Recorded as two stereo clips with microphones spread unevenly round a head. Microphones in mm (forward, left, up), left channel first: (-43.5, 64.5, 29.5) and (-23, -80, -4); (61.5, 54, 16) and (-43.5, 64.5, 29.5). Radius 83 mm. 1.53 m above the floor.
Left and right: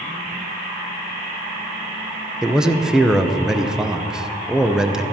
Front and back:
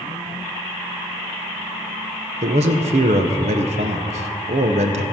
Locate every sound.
2.4 s a man speaking: 170° right, 0.8 m